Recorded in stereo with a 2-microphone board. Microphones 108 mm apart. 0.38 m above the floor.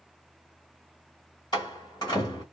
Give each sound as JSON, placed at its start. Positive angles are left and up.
{"t": 1.5, "sound": "a door slam", "side_deg": 40, "distance_m": 1.5}